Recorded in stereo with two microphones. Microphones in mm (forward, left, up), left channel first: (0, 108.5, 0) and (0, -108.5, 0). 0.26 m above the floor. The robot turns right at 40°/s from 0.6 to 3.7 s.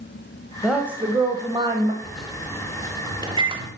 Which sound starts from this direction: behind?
A woman speaking, at 0.6 s.